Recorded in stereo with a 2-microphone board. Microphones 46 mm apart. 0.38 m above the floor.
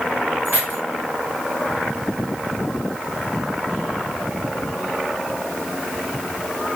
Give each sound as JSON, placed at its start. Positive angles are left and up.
{"t": 0.5, "sound": "keys jangling", "side_deg": -45, "distance_m": 1.2}